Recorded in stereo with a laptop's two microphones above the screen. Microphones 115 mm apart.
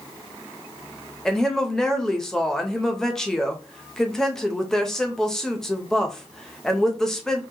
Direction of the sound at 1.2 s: 5° left (ahead or behind).